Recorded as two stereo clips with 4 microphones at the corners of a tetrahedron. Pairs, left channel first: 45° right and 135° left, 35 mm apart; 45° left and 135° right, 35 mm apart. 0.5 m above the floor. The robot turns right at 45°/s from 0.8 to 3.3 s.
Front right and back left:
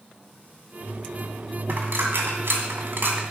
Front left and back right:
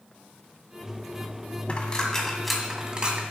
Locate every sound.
1.7 s a dropped coin: 100° left, 1.8 m; by 3.2 s 170° left, 1.8 m